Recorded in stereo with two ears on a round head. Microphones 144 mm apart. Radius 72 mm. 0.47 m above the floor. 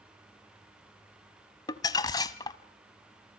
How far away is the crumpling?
About 0.9 m.